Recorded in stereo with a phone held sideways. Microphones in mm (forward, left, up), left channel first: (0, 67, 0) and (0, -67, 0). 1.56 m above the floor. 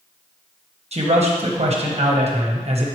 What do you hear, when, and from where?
0.9 s a man speaking: 50° right (ahead or behind), 1.1 m